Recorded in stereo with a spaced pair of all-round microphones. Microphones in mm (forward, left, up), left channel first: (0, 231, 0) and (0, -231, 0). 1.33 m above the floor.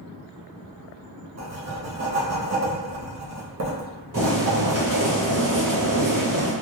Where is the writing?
35° right (ahead or behind), 0.5 m.